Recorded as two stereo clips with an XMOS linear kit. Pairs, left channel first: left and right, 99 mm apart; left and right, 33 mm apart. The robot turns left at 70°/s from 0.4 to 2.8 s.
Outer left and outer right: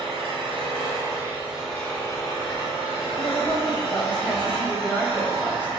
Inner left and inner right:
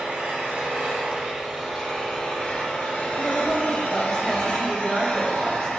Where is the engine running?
90° right, 1.5 m; by 5.8 s 100° left, 1.5 m.